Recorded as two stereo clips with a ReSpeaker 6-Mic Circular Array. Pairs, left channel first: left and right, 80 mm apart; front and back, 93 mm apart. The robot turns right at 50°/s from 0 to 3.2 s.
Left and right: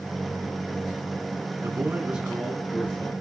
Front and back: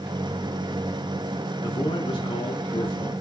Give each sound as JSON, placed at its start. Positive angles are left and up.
{"t": 1.6, "sound": "a man speaking", "azimuth_deg": -40, "distance_m": 3.5}